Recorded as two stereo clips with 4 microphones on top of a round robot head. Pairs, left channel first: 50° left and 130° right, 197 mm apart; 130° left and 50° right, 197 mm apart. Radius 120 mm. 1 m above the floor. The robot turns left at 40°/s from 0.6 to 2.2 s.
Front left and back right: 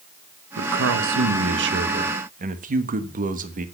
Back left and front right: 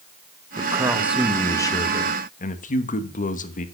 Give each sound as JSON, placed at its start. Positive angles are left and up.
{"t": 0.6, "sound": "a man speaking", "azimuth_deg": -115, "distance_m": 1.1}